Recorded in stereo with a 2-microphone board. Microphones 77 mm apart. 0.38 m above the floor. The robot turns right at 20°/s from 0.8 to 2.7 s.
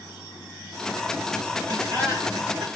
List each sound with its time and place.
1.7 s laughter: 50° right (ahead or behind), 2.5 m; by 2.6 s 65° right (ahead or behind), 2.5 m